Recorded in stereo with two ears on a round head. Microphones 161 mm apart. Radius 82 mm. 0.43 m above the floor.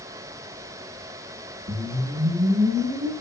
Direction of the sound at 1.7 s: 80° right.